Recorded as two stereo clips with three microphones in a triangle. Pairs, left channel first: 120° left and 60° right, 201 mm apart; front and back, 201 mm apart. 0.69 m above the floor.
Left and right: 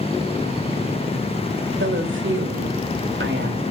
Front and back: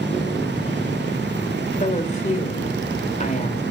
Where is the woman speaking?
50° right, 2 m.